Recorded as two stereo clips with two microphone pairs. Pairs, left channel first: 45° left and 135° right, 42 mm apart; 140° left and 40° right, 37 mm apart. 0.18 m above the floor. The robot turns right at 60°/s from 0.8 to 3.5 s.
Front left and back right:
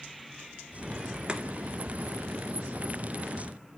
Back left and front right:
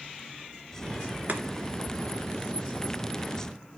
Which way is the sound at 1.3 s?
70° right.